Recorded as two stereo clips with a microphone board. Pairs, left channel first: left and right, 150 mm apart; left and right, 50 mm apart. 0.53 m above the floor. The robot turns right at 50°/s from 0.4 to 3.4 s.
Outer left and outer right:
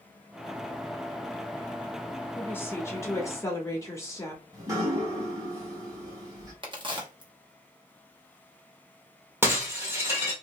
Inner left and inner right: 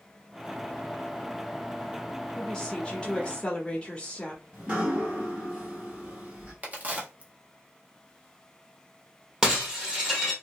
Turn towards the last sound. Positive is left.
turn(degrees=-15)  # may be behind; listen again after turning